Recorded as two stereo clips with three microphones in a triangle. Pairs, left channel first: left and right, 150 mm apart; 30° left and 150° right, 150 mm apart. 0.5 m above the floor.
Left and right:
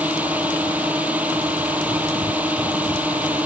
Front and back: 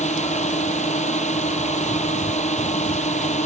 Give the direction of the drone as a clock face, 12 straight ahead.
12 o'clock.